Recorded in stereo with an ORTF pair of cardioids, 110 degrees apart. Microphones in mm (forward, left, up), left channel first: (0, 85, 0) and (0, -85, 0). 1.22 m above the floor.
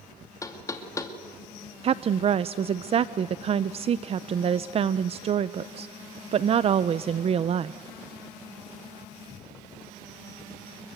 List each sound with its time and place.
0.4 s knocking: 20° left, 2.5 m
1.8 s a woman speaking: 35° right, 0.5 m